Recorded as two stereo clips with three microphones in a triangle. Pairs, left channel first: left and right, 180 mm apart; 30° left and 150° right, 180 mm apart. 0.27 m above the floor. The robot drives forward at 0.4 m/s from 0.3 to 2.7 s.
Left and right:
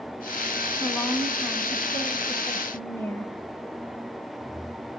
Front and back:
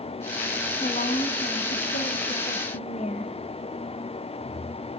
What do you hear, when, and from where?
0.8 s a woman speaking: 10° left, 1.9 m; by 3.3 s 20° left, 1.3 m